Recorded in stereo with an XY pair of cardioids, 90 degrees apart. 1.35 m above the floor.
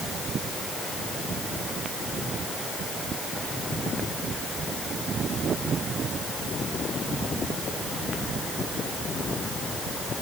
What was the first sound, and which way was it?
Only background noise.